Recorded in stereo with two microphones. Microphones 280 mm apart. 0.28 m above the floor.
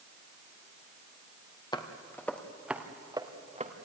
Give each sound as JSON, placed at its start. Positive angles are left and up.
{"t": 1.7, "sound": "footsteps", "side_deg": 15, "distance_m": 2.5}